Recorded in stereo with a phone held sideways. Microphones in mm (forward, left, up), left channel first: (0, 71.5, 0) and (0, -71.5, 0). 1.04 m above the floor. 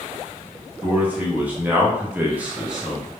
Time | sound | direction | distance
0.8 | a man speaking | 10° right (ahead or behind) | 1.1 m